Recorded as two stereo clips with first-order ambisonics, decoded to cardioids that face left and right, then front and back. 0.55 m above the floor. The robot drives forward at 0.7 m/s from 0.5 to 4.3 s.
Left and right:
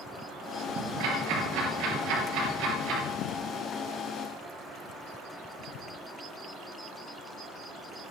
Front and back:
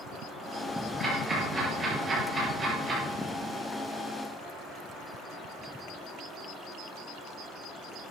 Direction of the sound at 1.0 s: 100° right.